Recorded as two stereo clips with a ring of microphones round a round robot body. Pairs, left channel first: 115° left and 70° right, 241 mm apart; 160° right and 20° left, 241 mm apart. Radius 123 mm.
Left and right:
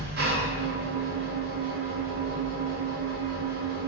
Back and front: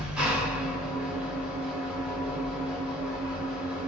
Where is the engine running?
60° right, 1.3 m.